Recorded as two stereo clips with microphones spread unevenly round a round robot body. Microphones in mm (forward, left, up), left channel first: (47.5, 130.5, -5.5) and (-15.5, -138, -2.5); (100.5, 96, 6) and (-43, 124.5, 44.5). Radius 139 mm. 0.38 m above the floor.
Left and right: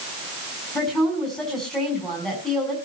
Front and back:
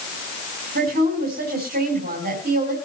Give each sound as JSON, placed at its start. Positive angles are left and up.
{"t": 0.8, "sound": "a woman speaking", "azimuth_deg": 165, "distance_m": 4.0}